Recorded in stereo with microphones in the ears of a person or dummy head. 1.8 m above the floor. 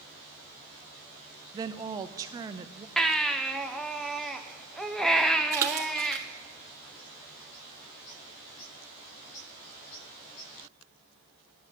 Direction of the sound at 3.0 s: Centre (ahead or behind).